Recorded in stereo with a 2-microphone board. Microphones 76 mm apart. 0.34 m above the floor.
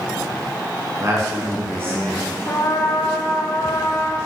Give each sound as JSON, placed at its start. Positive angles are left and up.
{"t": 1.0, "sound": "a man speaking", "side_deg": -40, "distance_m": 4.0}
{"t": 2.5, "sound": "a trumpet", "side_deg": 50, "distance_m": 2.5}